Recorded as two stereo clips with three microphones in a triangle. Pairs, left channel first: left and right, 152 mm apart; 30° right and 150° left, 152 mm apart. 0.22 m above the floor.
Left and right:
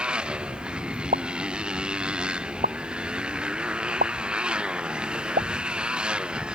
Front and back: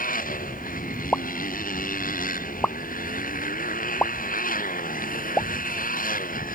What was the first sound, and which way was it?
A motorcycle, 5° right.